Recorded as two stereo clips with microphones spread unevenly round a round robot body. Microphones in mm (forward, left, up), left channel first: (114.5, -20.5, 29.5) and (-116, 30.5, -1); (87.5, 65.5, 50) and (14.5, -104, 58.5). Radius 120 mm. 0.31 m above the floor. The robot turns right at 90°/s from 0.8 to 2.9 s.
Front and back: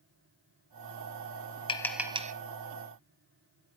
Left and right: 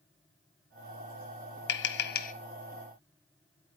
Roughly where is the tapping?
Ahead left.